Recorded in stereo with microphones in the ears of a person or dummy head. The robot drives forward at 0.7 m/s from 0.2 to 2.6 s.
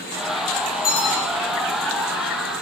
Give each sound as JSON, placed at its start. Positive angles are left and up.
{"t": 0.8, "sound": "a bell", "side_deg": 25, "distance_m": 3.5}